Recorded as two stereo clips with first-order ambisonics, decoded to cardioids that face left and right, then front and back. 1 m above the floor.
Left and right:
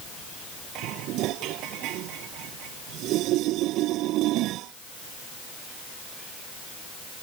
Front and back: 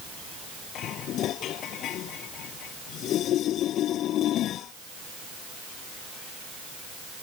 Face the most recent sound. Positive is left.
turn(degrees=-50)